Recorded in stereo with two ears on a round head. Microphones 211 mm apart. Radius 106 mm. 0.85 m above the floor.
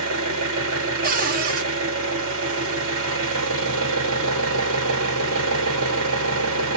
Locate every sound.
0.0 s an engine running: 65° right (ahead or behind), 1.6 m
1.0 s a cupboard door: 40° right (ahead or behind), 0.7 m